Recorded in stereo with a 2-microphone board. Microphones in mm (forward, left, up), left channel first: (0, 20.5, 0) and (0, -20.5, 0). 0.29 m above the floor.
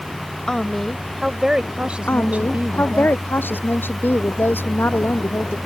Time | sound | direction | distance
0.5 | a woman speaking | 15° left (ahead or behind) | ?
2.1 | a woman speaking | 60° left (ahead or behind) | ?